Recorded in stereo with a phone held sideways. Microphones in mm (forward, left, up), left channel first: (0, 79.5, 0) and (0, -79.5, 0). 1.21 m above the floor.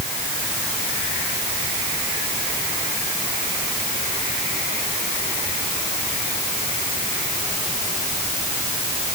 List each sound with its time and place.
Only background noise.